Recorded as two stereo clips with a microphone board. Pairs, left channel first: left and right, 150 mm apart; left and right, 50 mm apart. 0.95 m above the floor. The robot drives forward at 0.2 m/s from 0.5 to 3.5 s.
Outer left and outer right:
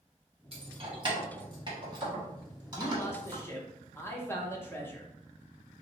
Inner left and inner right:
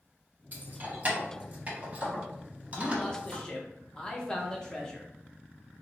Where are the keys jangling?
40° right (ahead or behind), 1.0 m; by 3.4 s 25° right (ahead or behind), 1.5 m.